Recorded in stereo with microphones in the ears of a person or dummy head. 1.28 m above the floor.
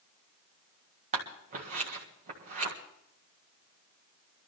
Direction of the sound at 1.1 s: 35° right (ahead or behind).